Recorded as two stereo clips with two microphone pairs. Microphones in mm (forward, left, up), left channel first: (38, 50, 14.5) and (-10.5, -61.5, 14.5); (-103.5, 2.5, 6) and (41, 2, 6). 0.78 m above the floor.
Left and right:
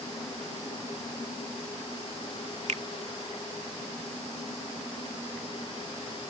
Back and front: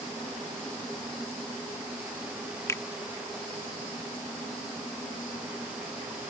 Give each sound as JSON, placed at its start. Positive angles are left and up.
{"t": 2.7, "sound": "a finger snap", "azimuth_deg": -115}